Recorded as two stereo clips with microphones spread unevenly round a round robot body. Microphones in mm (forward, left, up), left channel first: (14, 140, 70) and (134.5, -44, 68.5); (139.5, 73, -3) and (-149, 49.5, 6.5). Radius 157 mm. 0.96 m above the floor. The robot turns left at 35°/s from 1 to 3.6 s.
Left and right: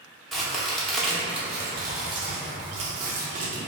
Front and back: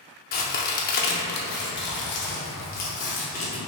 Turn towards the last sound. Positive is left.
turn(degrees=-55)